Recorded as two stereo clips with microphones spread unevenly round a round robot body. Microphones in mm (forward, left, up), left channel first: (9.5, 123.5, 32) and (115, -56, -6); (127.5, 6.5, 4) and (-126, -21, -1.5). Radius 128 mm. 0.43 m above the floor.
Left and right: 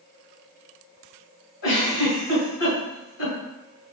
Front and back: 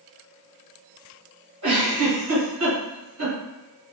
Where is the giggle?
150° left, 1.7 m.